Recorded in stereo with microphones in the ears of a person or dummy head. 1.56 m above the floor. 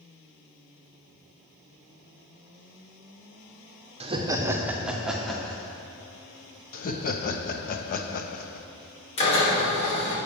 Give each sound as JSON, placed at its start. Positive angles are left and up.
{"t": 4.0, "sound": "laughter", "side_deg": -30, "distance_m": 0.8}
{"t": 6.7, "sound": "laughter", "side_deg": 45, "distance_m": 0.8}
{"t": 9.2, "sound": "a drill", "side_deg": 35, "distance_m": 3.0}